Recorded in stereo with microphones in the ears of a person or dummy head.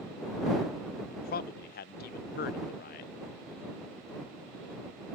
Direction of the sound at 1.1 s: 45° left (ahead or behind).